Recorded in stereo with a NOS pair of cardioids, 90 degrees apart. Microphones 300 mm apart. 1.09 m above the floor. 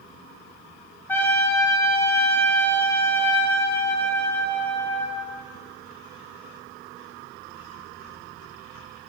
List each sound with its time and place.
1.1 s a trumpet: 10° left, 0.7 m